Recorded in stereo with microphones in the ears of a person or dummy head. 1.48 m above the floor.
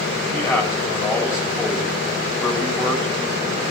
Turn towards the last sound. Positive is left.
turn(degrees=15)  # may be behind; listen again after turning